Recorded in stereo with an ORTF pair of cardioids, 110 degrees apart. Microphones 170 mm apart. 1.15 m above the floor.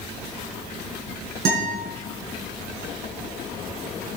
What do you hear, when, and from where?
1.4 s a guitar: 65° right, 6 m